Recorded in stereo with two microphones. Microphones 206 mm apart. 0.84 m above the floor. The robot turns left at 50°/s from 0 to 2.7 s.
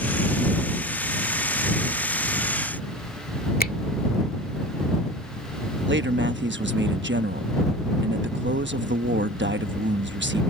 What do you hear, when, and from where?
3.6 s a finger snap: 45° left (ahead or behind)
5.9 s a man speaking: 60° right (ahead or behind)